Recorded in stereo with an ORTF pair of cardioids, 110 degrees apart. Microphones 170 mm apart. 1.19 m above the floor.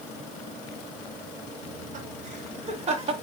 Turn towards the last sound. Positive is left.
turn(degrees=-40)